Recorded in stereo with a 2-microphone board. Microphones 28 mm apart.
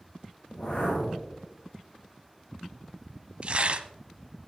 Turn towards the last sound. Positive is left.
turn(degrees=-40)  # may be behind; listen again after turning